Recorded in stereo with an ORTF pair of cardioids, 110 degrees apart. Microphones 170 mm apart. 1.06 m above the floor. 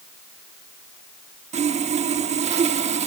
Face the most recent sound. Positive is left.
turn(degrees=-45)